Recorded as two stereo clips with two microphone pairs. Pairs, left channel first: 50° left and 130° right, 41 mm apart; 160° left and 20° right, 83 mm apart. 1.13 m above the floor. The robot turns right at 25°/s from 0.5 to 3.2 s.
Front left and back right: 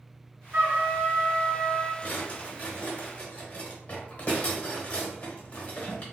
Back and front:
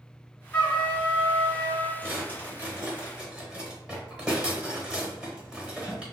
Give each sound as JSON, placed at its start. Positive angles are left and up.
{"t": 0.5, "sound": "a trumpet", "azimuth_deg": -135, "distance_m": 1.3}
{"t": 2.0, "sound": "a drawer", "azimuth_deg": 25, "distance_m": 1.0}